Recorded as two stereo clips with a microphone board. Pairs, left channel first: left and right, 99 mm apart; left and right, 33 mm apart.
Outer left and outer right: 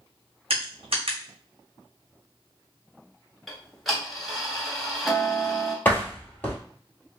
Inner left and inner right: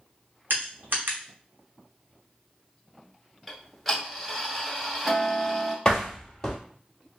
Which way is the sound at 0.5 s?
80° right.